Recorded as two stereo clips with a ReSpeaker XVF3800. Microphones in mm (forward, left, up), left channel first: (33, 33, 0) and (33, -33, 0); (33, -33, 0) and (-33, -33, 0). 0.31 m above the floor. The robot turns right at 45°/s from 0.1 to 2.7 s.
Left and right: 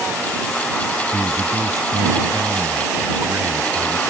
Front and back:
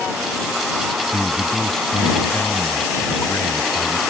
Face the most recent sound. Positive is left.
turn(degrees=-40)